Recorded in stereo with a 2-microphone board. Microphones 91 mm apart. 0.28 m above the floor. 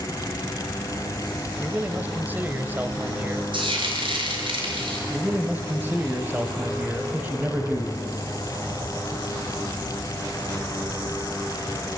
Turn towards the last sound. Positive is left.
turn(degrees=-20)  # may be behind; listen again after turning